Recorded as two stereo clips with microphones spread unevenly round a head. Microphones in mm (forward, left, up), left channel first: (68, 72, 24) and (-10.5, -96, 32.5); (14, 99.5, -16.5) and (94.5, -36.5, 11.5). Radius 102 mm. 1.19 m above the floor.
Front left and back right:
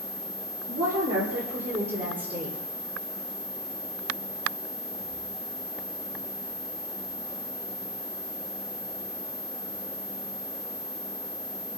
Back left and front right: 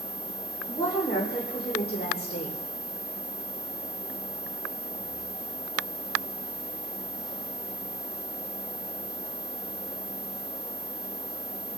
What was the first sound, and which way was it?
A woman speaking, 160° right.